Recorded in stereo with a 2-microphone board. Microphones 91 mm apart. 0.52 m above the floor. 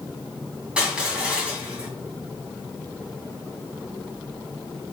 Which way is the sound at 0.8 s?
10° right (ahead or behind).